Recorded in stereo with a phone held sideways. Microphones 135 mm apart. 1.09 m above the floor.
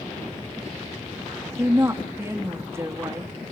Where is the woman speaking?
20° right (ahead or behind), 1.6 m.